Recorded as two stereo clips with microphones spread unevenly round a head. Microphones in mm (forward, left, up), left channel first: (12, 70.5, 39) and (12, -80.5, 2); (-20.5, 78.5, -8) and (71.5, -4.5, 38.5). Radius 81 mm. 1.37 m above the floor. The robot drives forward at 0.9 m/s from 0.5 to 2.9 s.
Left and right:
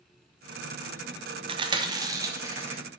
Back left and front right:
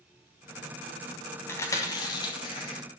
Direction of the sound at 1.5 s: 145° right.